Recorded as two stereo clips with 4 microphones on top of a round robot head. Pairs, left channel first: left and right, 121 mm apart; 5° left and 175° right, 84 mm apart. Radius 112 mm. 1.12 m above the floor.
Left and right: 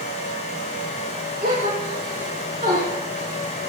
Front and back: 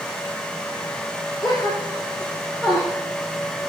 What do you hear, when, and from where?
1.4 s a gasp: 100° right, 6.5 m